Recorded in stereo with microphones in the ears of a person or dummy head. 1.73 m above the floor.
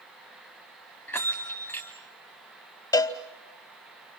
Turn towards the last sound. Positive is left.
turn(degrees=20)  # may be behind; listen again after turning